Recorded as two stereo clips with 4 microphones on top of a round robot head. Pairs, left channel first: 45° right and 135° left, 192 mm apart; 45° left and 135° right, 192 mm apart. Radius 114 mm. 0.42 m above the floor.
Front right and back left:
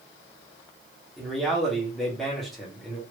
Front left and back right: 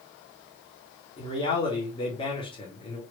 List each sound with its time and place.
1.2 s a man speaking: 45° left, 1.5 m